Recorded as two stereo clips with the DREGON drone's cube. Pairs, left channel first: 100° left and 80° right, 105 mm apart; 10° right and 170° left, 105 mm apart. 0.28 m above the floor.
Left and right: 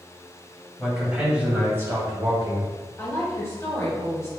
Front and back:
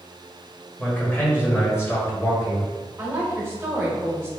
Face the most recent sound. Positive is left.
turn(degrees=125)